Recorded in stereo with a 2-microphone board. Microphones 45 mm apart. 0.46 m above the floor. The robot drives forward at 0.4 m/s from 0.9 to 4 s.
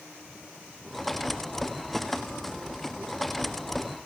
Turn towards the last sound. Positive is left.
No sound to turn to.